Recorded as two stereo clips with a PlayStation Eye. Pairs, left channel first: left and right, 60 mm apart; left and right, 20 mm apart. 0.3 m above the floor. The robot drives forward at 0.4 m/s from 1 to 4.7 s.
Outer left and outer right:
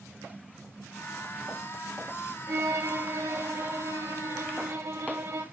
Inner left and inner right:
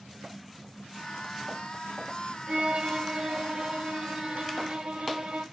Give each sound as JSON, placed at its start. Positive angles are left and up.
{"t": 2.5, "sound": "a violin", "side_deg": -65, "distance_m": 7.0}